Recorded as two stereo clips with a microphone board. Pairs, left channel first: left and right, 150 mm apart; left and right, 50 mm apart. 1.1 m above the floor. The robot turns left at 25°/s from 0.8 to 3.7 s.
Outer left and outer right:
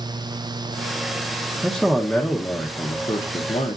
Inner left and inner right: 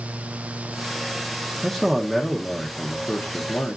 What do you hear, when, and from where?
1.6 s a man speaking: straight behind, 0.7 m; by 3.8 s 130° left, 0.7 m